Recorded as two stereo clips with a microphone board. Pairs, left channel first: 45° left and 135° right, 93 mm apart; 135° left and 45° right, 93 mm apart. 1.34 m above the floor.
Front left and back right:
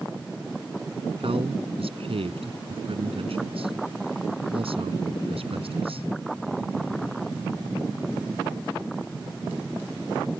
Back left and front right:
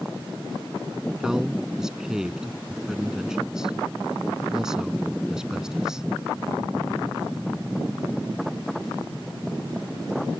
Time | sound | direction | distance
1.2 | a man speaking | 130° right | ?